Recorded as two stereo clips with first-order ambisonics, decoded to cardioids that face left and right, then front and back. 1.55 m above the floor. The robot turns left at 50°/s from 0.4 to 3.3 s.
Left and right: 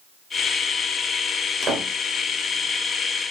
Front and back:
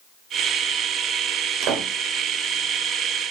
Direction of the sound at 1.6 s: 145° right.